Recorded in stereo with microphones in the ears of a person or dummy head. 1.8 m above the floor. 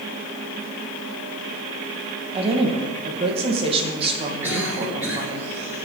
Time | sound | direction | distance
2.3 | a woman speaking | 30° right (ahead or behind) | 2 m
4.4 | a cough | 15° right (ahead or behind) | 7.5 m